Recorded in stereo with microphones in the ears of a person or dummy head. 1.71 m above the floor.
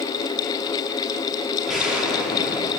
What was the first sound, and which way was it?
An explosion, 5° right (ahead or behind).